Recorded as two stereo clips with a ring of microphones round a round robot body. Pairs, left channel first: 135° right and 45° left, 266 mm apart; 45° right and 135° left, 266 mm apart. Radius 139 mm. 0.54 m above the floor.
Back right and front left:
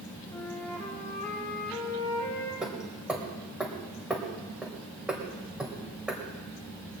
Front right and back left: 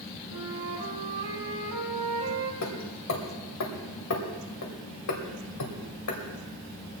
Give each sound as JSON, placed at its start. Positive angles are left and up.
{"t": 0.3, "sound": "a flute", "azimuth_deg": 145, "distance_m": 4.5}
{"t": 2.6, "sound": "hammering", "azimuth_deg": -40, "distance_m": 2.5}